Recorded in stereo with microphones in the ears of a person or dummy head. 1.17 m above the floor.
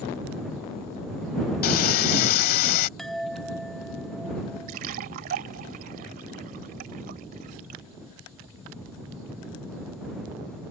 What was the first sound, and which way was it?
Sawing, 55° left (ahead or behind).